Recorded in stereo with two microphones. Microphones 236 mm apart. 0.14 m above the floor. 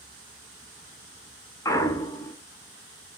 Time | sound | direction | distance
1.6 | a clunk | 15° left (ahead or behind) | 0.6 m